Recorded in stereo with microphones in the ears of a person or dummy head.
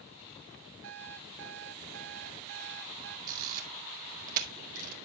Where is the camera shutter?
50° right (ahead or behind), 1.6 m.